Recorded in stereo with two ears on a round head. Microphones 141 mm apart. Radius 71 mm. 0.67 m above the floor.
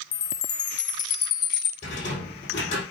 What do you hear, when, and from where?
0.1 s a chime: 30° left (ahead or behind), 0.9 m
1.8 s a rattle: 45° left (ahead or behind), 5 m